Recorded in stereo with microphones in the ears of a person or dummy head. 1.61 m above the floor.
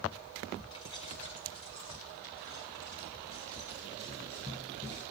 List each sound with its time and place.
0.7 s keys jangling: 25° left (ahead or behind), 1.2 m